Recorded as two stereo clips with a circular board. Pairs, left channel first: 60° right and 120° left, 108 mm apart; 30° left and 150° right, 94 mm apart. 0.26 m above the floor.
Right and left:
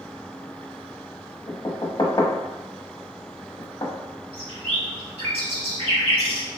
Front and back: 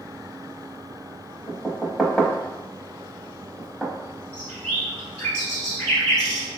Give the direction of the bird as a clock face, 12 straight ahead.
8 o'clock.